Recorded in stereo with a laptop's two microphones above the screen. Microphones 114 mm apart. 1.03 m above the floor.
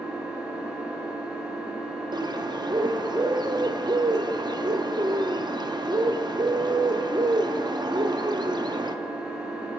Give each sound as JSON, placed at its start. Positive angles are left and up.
{"t": 0.0, "sound": "an engine running", "side_deg": -10, "distance_m": 2.0}
{"t": 2.1, "sound": "a bird", "side_deg": -40, "distance_m": 0.6}